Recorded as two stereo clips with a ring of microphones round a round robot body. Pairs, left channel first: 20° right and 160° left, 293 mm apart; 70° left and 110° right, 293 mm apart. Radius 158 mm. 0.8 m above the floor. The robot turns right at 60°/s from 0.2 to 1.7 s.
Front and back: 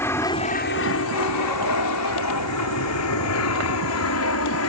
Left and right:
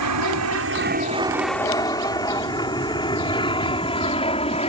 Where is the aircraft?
105° right; by 4.7 s straight ahead.